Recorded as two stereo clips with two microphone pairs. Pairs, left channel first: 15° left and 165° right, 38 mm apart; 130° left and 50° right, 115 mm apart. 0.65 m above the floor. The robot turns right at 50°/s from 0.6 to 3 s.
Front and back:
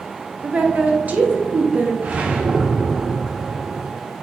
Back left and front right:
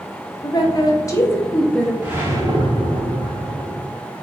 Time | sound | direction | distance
0.4 | a woman speaking | 160° left | 0.7 m
2.0 | a whoosh | 125° right | 0.7 m